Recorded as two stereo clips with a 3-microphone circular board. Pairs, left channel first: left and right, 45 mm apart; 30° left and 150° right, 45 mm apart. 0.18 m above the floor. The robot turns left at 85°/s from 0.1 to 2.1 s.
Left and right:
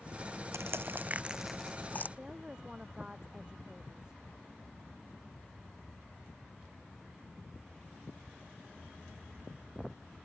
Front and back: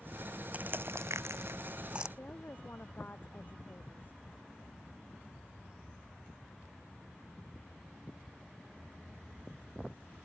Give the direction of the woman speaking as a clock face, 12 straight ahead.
1 o'clock.